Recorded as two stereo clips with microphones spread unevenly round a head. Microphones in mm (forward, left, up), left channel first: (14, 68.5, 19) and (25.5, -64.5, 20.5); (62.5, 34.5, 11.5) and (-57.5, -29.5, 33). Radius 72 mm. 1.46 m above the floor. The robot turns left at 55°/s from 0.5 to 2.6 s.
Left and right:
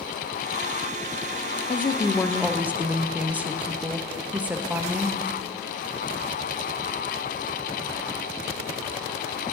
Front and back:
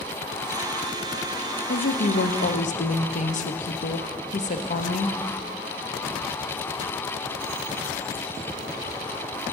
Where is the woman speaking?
45° left, 0.7 m; by 5.2 s 5° right, 0.7 m.